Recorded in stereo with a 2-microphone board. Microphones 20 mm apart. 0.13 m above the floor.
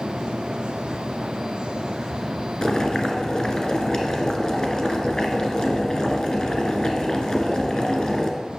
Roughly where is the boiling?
Left.